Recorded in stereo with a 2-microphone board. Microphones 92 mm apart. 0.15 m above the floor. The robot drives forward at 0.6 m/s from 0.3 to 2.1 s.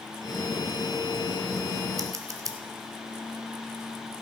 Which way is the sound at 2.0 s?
40° right (ahead or behind).